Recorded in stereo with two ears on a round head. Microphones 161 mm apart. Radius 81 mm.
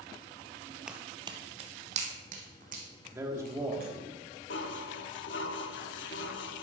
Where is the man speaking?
15° right (ahead or behind), 1.6 m.